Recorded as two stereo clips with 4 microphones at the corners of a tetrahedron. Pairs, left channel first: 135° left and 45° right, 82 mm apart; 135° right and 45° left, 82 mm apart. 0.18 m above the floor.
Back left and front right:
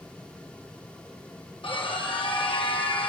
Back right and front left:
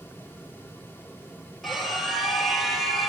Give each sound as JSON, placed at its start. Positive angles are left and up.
{"t": 1.6, "sound": "a scream", "azimuth_deg": 140, "distance_m": 5.5}